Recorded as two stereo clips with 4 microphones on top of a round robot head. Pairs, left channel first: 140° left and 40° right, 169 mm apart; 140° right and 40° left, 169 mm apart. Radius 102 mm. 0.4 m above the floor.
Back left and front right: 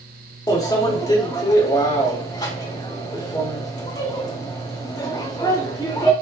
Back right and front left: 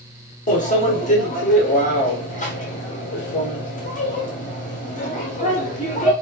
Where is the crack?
No crack in this recording.